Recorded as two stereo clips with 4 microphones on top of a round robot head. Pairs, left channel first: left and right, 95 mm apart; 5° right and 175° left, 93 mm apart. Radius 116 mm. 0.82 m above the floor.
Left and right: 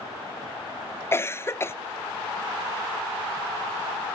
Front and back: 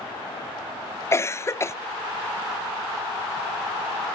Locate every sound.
1.1 s a cough: 45° left, 0.6 m